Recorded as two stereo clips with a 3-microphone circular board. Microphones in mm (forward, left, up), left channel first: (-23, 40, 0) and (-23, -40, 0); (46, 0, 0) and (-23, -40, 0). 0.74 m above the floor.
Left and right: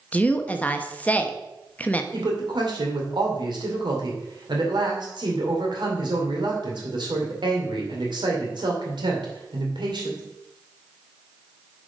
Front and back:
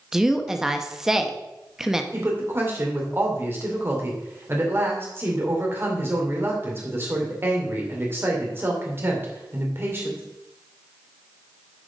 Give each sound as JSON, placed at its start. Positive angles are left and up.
{"t": 0.1, "sound": "a woman speaking", "azimuth_deg": 135, "distance_m": 0.7}
{"t": 2.1, "sound": "a woman speaking", "azimuth_deg": -90, "distance_m": 2.0}